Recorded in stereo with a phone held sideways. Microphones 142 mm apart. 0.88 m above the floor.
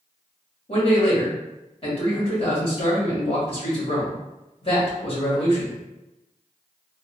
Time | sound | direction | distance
0.7 | a man speaking | 40° left (ahead or behind) | 1.8 m